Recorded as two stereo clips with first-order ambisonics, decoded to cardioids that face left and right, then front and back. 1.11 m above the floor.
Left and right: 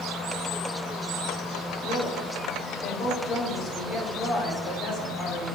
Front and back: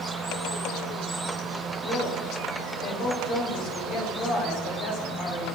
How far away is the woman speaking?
About 2.5 m.